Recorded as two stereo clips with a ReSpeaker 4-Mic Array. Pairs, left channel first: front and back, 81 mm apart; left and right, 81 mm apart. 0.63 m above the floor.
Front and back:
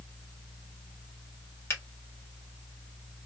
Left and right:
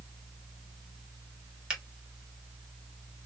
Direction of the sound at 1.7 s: 15° right.